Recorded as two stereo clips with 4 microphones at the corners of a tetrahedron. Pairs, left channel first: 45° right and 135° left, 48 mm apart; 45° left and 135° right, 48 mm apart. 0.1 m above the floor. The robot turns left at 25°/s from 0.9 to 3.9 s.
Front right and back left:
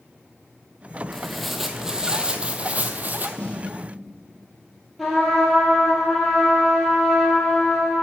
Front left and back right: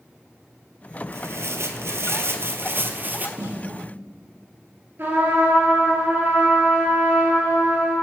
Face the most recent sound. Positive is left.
turn(degrees=-135)